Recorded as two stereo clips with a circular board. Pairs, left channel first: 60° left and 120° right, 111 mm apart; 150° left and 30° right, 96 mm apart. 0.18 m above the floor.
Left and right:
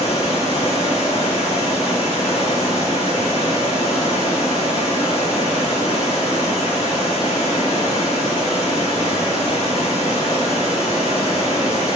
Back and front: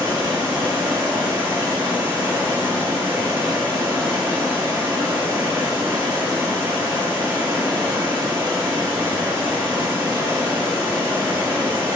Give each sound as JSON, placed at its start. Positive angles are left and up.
{"t": 0.0, "sound": "running water", "azimuth_deg": 40, "distance_m": 2.0}